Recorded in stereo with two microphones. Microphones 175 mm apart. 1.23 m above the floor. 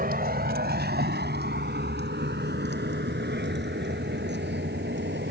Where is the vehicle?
60° right (ahead or behind); by 5.3 s 80° right.